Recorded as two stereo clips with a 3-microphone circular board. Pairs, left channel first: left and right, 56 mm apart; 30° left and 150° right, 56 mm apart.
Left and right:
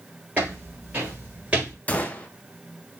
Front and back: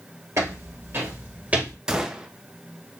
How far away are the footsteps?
About 2.5 m.